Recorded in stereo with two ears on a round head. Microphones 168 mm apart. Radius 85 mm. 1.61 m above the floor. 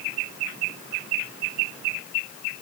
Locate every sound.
Only background noise.